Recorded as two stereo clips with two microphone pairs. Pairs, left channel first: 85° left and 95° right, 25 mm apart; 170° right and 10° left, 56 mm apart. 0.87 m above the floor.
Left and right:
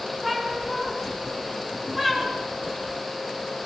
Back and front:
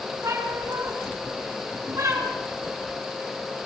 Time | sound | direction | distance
0.2 | a cat meowing | 10° right | 6 m